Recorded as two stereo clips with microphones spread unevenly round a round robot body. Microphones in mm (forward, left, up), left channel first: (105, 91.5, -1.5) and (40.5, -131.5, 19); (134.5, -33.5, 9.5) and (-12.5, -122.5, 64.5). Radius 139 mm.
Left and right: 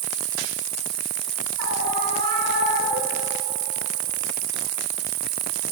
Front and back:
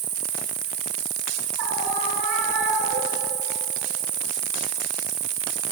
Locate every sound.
0.0 s an insect: 110° right, 0.7 m
1.6 s a scream: 160° right, 4 m